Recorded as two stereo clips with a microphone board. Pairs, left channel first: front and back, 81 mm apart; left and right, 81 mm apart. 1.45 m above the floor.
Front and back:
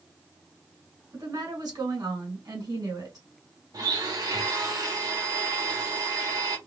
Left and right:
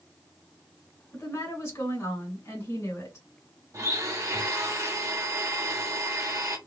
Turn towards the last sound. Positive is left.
turn(degrees=-140)